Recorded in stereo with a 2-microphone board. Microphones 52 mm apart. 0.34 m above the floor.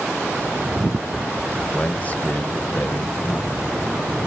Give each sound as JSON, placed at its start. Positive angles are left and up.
{"t": 1.7, "sound": "a man speaking", "side_deg": 25, "distance_m": 1.1}